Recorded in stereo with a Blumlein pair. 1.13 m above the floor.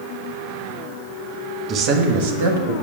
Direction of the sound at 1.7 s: 30° right.